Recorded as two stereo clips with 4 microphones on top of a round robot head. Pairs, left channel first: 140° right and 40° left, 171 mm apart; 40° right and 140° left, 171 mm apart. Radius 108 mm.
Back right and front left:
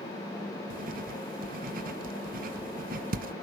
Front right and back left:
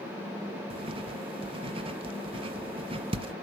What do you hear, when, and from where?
0.7 s writing: 80° left, 0.7 m